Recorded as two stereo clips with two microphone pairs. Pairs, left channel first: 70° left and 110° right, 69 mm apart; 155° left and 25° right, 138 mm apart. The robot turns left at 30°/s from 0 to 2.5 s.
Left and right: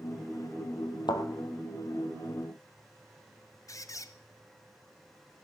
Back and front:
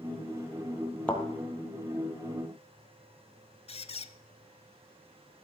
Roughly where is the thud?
Left.